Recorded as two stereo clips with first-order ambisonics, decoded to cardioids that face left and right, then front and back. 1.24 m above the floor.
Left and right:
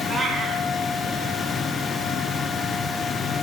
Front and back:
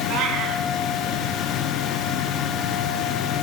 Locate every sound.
0.1 s a cat meowing: 170° right, 1.4 m